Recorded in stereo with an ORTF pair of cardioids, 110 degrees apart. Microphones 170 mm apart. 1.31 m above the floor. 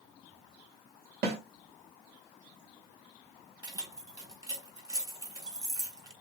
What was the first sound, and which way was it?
A snare drum, 70° right.